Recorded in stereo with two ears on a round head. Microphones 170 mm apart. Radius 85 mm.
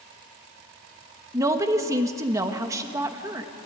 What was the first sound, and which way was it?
A woman speaking, 15° right (ahead or behind).